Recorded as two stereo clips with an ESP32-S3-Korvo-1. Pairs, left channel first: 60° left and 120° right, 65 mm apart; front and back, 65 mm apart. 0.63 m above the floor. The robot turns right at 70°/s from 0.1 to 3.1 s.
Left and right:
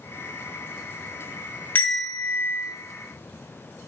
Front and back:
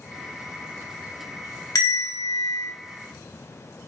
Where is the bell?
5° right, 1.9 m; by 2.7 s 60° left, 1.9 m.